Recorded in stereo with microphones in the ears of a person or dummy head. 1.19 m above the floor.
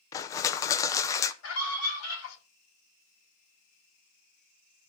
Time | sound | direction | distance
0.1 | crushing | 20° left (ahead or behind) | 0.5 m
1.4 | a scream | 80° left | 6 m